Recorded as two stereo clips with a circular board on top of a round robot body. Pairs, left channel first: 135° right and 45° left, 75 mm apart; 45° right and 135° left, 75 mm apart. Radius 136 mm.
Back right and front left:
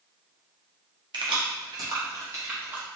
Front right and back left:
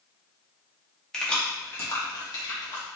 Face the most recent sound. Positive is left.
turn(degrees=-20)